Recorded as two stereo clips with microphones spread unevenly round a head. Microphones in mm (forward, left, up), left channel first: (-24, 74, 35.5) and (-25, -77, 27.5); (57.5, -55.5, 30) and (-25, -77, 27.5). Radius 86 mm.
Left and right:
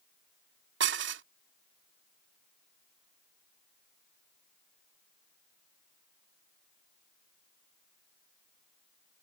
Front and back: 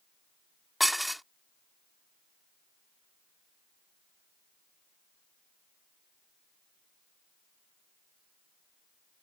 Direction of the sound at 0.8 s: 75° right.